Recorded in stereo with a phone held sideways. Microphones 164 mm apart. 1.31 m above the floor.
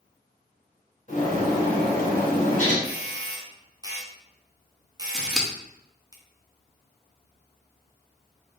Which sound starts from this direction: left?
A bird, at 1.1 s.